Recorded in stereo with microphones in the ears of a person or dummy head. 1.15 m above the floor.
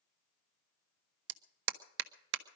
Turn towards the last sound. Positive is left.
turn(degrees=-70)  # may be behind; listen again after turning